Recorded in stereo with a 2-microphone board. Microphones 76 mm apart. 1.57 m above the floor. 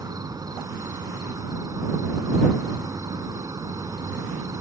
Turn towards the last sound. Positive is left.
turn(degrees=-50)  # may be behind; listen again after turning